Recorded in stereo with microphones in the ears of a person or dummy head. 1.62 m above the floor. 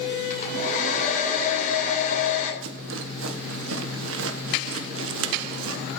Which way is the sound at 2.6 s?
80° right.